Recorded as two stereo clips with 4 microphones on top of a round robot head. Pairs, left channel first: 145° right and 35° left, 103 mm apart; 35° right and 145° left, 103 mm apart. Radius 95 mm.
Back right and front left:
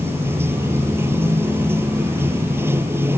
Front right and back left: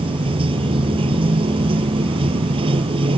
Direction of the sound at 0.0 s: 105° left.